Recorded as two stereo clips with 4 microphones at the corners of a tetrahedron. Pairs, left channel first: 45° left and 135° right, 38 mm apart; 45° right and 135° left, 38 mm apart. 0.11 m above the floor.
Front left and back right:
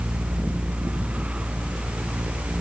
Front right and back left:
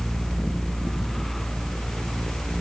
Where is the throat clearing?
I don't hear throat clearing.